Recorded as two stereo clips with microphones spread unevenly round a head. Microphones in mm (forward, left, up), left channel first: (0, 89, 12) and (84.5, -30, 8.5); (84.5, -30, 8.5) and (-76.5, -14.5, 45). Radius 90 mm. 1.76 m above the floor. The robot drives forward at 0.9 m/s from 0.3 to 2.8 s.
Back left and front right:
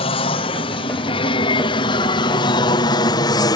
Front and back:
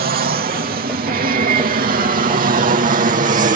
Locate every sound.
0.0 s an aircraft: 165° left; by 3.6 s 175° left